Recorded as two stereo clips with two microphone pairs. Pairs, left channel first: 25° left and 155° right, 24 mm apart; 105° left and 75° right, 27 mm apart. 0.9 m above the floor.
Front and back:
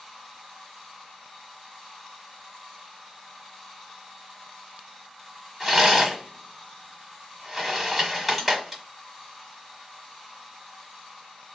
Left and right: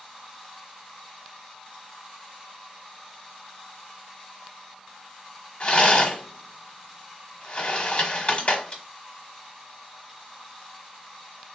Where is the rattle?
125° left, 1.1 m.